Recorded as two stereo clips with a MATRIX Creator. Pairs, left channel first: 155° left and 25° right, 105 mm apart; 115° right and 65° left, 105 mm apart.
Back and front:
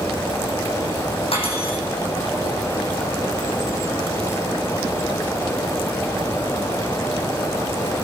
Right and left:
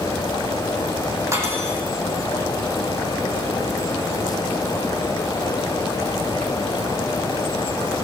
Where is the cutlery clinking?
130° left, 5.5 m.